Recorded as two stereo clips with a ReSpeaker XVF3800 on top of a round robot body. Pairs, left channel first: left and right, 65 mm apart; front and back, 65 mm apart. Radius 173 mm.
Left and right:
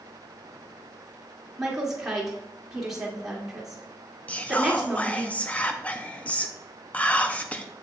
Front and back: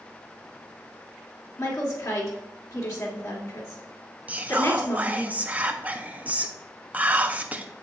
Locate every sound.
1.6 s a woman speaking: 10° right, 2 m
4.3 s whispering: 135° left, 0.7 m